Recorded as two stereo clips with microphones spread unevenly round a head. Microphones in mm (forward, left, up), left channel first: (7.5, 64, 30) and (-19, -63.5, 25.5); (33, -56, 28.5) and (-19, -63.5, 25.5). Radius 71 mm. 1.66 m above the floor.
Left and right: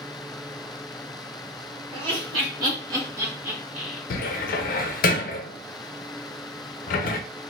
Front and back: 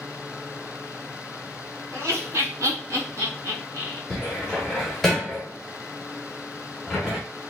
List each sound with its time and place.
1.9 s laughter: 140° right, 1.6 m; by 4.0 s straight behind, 1.0 m
4.1 s a cupboard door: 95° left, 0.5 m